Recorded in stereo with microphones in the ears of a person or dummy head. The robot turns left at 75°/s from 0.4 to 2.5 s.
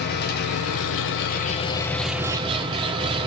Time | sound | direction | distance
0.0 | an engine running | 120° left | 1.2 m